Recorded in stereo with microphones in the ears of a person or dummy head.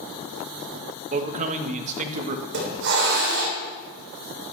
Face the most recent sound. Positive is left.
turn(degrees=-65)  # may be behind; listen again after turning